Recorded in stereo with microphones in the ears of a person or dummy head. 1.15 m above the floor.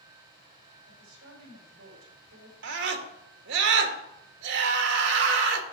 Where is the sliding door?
No sliding door in this recording.